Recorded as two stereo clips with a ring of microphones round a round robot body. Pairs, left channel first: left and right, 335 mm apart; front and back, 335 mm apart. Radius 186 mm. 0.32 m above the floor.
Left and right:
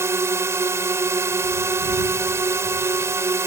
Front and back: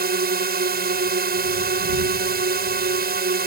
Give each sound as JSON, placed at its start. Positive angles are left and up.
{"t": 0.0, "sound": "a drone", "azimuth_deg": -165}